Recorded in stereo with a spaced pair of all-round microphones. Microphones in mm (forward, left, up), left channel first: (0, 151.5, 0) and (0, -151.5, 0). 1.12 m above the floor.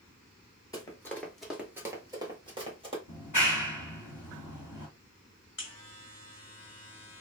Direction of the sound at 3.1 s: 80° left.